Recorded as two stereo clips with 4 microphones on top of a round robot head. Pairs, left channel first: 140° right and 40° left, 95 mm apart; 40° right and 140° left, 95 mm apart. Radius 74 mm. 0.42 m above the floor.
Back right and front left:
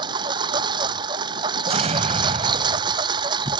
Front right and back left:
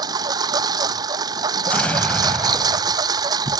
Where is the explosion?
35° left.